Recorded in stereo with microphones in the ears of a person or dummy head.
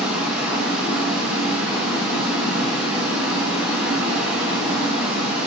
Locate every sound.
0.0 s running water: 5° right (ahead or behind), 1.0 m